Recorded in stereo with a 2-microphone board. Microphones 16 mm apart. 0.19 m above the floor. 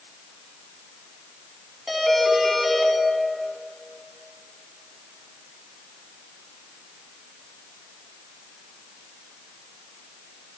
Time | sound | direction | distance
1.9 | a doorbell | 5° right (ahead or behind) | 1.8 m